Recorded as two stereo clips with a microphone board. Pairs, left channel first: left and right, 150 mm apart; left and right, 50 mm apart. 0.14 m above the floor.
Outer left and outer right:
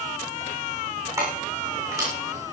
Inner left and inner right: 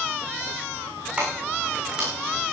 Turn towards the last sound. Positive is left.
turn(degrees=-20)  # may be behind; listen again after turning